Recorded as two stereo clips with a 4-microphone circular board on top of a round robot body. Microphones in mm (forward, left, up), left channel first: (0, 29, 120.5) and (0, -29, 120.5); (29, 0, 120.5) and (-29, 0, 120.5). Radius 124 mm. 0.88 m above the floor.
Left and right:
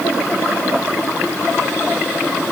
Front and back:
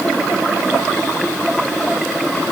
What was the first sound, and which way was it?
Only background noise.